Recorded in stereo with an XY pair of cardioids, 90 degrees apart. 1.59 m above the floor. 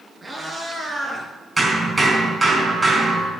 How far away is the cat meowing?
About 4.5 m.